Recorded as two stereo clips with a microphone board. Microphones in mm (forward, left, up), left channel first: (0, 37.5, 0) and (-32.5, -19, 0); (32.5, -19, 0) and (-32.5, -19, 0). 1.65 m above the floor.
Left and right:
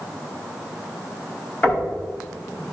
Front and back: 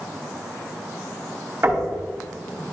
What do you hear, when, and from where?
1.6 s knocking: 125° left, 4.5 m